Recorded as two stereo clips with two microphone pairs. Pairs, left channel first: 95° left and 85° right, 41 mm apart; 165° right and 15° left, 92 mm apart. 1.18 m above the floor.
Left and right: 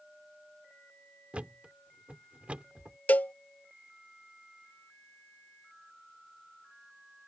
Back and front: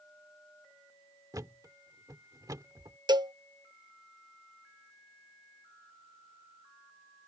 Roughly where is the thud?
Ahead right.